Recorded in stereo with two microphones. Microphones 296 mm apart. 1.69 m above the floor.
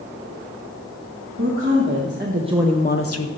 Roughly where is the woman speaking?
Right.